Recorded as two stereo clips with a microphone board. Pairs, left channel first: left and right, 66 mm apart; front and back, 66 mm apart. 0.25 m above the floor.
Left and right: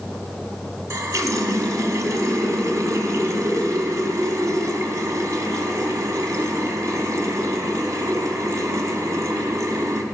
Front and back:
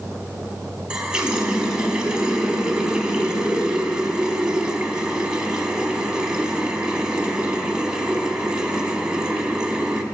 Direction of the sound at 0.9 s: 105° right.